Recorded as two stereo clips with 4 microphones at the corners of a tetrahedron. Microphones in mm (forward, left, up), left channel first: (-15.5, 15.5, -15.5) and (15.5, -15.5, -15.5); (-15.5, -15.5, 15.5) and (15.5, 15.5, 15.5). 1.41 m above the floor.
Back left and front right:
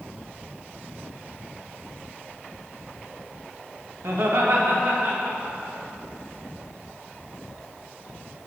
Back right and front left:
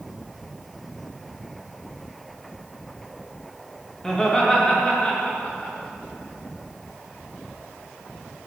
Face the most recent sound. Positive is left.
turn(degrees=-85)